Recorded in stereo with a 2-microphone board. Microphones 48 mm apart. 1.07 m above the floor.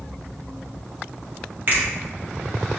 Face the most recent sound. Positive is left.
turn(degrees=-45)  # may be behind; listen again after turning